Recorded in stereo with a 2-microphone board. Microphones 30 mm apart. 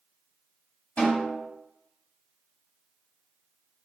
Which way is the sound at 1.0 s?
55° left (ahead or behind).